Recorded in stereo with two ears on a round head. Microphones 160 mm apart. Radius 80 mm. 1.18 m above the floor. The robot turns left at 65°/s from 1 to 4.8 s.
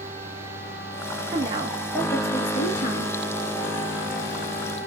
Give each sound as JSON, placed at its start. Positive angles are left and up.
{"t": 1.3, "sound": "a woman speaking", "azimuth_deg": -135, "distance_m": 1.5}